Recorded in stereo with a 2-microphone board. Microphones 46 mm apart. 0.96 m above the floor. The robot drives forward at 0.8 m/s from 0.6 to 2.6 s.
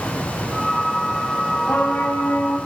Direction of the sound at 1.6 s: 50° left (ahead or behind).